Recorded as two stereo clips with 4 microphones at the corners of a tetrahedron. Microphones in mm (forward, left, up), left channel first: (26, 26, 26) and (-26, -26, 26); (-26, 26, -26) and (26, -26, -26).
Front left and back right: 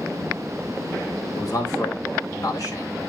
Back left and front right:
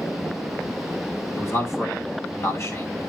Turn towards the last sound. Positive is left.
turn(degrees=85)